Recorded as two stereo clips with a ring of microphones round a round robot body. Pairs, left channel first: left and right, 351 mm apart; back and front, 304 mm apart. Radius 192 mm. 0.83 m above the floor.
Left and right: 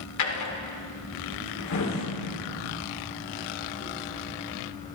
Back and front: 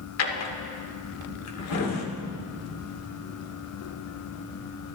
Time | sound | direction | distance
0.2 | a drawer | 140° left | 1.8 m